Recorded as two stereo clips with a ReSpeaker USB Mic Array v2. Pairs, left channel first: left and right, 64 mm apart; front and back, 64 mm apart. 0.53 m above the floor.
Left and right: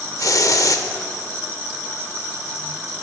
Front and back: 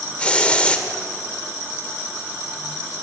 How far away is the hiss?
About 0.7 m.